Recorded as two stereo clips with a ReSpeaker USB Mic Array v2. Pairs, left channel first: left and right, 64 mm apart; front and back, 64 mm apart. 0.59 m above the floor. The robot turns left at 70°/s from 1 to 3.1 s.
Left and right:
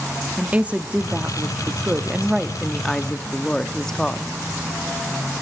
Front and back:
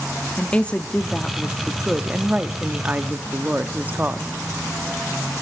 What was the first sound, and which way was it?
A woman speaking, 50° right.